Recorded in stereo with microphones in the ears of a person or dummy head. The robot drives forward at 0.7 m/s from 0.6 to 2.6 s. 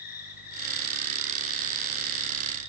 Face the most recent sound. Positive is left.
turn(degrees=40)  # may be behind; listen again after turning